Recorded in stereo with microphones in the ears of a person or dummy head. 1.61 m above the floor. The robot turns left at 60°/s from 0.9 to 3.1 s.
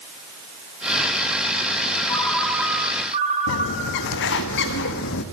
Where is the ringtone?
15° left, 3 m; by 4.1 s 45° right, 3 m.